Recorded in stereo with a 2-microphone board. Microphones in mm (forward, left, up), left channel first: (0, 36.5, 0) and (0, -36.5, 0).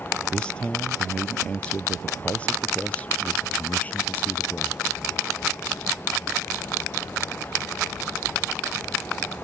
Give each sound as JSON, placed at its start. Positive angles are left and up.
{"t": 0.3, "sound": "a man speaking", "side_deg": 15}